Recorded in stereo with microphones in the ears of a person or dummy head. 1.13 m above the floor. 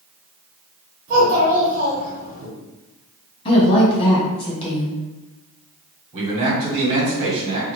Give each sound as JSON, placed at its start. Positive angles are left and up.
{"t": 1.1, "sound": "a child speaking", "side_deg": -45, "distance_m": 1.6}
{"t": 3.5, "sound": "a woman speaking", "side_deg": 25, "distance_m": 1.7}
{"t": 6.1, "sound": "a man speaking", "side_deg": -40, "distance_m": 1.7}